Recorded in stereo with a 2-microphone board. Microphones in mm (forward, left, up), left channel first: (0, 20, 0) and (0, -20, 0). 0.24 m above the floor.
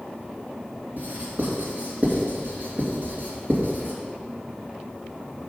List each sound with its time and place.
1.0 s writing: 55° right (ahead or behind), 2.5 m